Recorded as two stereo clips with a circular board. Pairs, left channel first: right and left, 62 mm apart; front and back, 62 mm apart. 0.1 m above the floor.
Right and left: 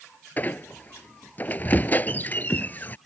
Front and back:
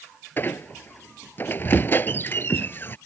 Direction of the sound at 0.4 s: 40° right.